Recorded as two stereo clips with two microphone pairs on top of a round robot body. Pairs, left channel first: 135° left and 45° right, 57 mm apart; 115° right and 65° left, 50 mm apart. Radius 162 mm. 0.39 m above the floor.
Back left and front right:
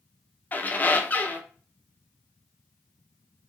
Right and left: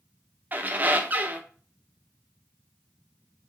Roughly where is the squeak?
Left.